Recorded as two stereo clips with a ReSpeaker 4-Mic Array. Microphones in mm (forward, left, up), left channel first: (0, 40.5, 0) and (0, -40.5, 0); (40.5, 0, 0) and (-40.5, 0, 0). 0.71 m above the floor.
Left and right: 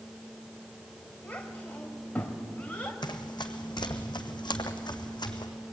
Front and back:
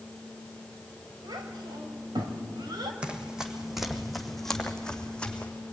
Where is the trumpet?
I don't hear a trumpet.